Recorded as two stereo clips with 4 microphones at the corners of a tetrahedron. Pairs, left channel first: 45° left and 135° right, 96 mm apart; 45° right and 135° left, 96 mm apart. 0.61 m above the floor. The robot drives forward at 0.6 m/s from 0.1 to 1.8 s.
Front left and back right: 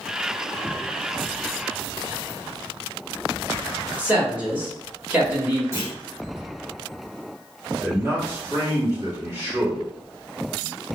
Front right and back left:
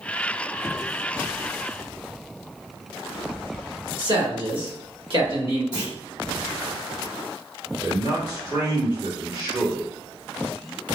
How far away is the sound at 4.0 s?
About 1.3 m.